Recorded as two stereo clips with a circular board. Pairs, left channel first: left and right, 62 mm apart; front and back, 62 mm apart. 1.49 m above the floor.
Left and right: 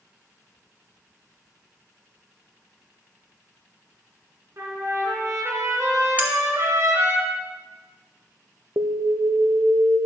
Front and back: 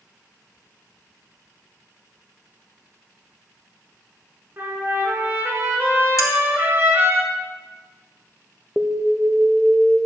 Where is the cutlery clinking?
30° right, 1.7 m.